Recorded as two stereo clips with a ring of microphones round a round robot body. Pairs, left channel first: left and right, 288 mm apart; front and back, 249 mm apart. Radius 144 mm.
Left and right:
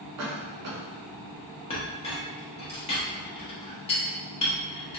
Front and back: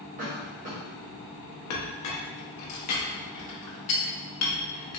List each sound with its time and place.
0.2 s a cough: 120° right, 0.9 m
1.7 s a clink: 20° left, 0.8 m